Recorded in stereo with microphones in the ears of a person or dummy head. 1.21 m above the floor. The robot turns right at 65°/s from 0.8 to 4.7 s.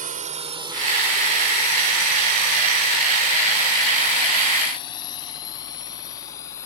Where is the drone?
40° right (ahead or behind); by 6.7 s 20° left (ahead or behind).